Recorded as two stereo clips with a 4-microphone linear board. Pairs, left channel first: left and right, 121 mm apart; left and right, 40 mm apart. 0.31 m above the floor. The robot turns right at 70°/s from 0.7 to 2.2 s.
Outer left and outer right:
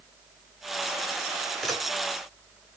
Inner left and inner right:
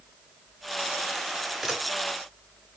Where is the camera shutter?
Centre (ahead or behind), 1.7 m; by 1.8 s 5° right (ahead or behind), 1.7 m.